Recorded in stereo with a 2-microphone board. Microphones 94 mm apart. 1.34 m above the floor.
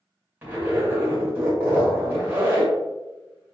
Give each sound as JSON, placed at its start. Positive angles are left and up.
{"t": 0.4, "sound": "a zipper", "side_deg": -20, "distance_m": 1.7}